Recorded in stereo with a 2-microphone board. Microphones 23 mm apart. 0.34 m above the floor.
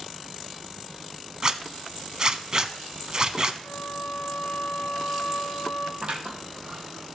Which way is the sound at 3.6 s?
70° left (ahead or behind).